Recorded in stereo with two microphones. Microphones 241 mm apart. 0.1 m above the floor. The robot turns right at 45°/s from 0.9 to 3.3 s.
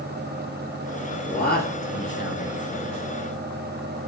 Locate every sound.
1.3 s a man speaking: 55° left, 1.7 m; by 2.5 s 115° left, 1.7 m